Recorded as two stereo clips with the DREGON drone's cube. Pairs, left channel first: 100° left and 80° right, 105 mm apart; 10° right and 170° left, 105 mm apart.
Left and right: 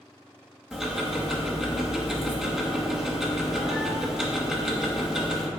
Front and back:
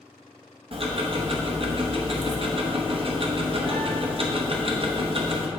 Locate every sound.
0.7 s ticking: 165° right, 0.9 m